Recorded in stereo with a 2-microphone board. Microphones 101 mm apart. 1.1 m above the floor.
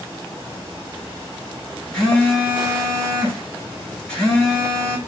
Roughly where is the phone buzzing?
Centre.